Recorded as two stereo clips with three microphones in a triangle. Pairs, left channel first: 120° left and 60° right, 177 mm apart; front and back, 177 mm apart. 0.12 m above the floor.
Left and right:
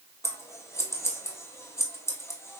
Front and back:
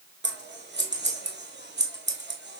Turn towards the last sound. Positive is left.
turn(degrees=-165)